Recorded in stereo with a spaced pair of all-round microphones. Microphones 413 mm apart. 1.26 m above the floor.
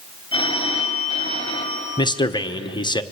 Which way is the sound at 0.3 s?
10° left (ahead or behind).